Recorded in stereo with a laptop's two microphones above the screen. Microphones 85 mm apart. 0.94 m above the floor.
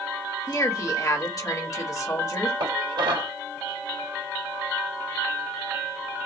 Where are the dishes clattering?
85° right, 2.5 m.